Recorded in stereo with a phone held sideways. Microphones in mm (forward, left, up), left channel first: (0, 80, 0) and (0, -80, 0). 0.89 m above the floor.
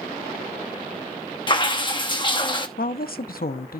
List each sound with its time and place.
1.5 s dripping: 30° left (ahead or behind), 1.0 m
2.8 s a woman speaking: 75° left (ahead or behind), 0.8 m